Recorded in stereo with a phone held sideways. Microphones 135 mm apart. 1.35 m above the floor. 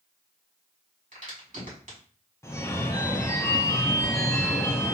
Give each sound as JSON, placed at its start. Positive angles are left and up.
{"t": 1.1, "sound": "a crack", "side_deg": -70, "distance_m": 2.0}
{"t": 2.4, "sound": "a phone ringing", "side_deg": 20, "distance_m": 0.6}